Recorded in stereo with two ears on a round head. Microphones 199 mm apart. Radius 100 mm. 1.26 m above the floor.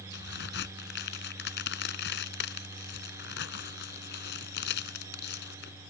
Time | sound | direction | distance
0.1 | a crack | 50° left (ahead or behind) | ?